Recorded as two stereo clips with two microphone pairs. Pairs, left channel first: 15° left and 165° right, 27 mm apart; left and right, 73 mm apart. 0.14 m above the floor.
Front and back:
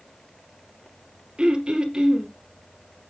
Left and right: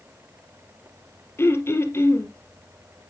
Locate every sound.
1.4 s throat clearing: 140° left, 2.5 m